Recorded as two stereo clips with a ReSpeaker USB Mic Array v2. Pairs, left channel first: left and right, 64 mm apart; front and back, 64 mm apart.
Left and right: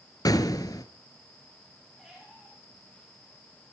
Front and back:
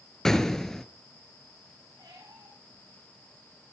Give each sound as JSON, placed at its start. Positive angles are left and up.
{"t": 0.2, "sound": "an explosion", "azimuth_deg": 85, "distance_m": 1.2}
{"t": 2.0, "sound": "a squeak", "azimuth_deg": 180, "distance_m": 9.0}